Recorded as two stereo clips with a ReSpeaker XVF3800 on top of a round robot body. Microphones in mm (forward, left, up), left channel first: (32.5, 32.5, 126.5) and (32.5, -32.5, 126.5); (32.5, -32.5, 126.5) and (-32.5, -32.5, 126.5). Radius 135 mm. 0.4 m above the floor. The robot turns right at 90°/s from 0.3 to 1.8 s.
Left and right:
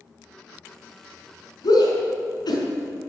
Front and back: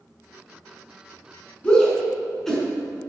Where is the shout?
70° left, 5.5 m; by 2.6 s 85° left, 5.5 m.